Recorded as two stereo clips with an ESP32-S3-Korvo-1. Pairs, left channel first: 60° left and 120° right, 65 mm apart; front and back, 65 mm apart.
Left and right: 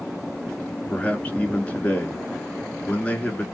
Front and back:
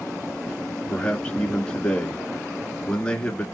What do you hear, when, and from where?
0.9 s a man speaking: 45° left, 1.1 m